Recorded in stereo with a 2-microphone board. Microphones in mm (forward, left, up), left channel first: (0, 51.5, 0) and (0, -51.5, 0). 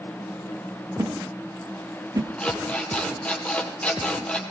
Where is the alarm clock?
10° left (ahead or behind), 2.5 m.